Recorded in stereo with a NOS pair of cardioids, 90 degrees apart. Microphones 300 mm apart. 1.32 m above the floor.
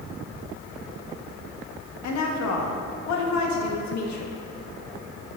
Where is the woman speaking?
65° left, 1.4 m.